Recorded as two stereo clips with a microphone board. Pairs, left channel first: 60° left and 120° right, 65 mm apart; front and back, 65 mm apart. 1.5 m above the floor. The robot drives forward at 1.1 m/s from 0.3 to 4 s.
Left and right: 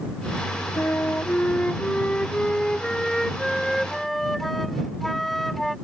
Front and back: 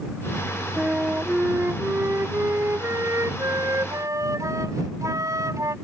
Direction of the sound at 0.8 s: 115° left.